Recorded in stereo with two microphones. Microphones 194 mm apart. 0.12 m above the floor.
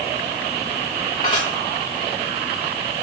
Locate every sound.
1.2 s dishes clattering: 25° left (ahead or behind), 8 m